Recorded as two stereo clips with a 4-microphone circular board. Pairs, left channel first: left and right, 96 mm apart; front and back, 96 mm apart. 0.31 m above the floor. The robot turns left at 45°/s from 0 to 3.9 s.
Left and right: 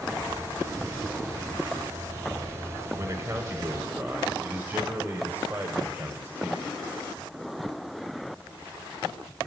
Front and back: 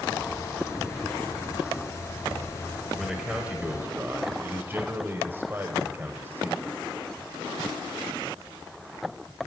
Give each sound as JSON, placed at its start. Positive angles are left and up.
{"t": 3.0, "sound": "a man speaking", "azimuth_deg": -95, "distance_m": 1.2}